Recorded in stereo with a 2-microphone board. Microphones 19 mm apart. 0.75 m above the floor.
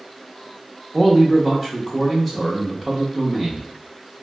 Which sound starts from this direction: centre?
A man speaking, at 0.9 s.